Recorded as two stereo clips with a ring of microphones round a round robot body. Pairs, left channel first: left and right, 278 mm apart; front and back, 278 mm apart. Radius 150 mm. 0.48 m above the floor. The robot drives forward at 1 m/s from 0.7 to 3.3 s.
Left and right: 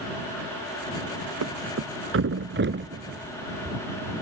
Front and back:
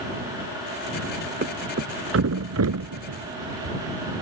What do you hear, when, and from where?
1.4 s a thud: 125° right; by 3.8 s 150° right